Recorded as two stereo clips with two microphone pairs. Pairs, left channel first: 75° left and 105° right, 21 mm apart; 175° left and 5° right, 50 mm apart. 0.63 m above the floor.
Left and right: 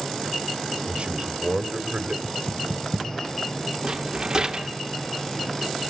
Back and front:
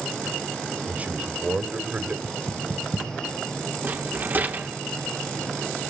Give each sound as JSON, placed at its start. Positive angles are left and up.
{"t": 0.9, "sound": "a man speaking", "azimuth_deg": -65, "distance_m": 2.0}
{"t": 2.2, "sound": "knocking", "azimuth_deg": 100, "distance_m": 3.5}
{"t": 3.8, "sound": "a rattle", "azimuth_deg": -45, "distance_m": 1.9}